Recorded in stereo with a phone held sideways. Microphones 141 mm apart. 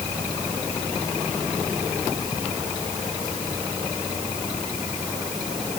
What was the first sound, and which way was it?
Only background noise.